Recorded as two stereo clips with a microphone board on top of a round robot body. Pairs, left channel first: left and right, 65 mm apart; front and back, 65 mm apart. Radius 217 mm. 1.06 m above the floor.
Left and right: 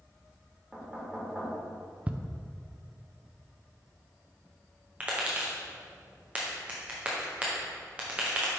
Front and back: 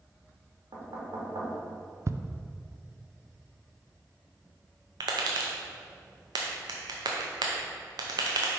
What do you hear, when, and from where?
0.7 s knocking: 170° right, 1.8 m
2.1 s ticking: 150° right, 0.6 m
5.0 s tapping: 160° right, 0.6 m